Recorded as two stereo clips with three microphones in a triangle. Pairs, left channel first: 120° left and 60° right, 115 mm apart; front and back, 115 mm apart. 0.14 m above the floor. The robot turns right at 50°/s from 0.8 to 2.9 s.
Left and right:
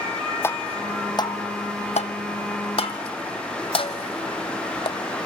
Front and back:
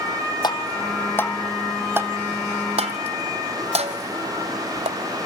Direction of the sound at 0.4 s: 50° left.